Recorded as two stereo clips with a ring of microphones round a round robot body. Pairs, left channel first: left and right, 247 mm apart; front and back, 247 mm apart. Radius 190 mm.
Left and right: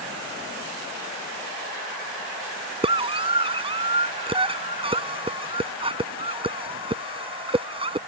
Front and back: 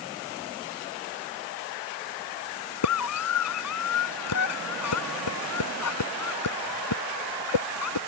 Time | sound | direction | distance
2.8 | a scream | 20° right | ?